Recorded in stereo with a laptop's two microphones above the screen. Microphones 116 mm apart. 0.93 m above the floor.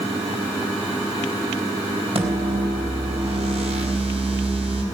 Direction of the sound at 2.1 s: 60° right (ahead or behind).